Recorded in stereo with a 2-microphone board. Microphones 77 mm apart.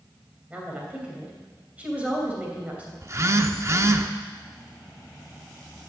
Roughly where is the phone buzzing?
Right.